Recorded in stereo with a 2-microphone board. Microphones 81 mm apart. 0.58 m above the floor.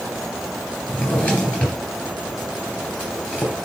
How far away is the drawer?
About 3 m.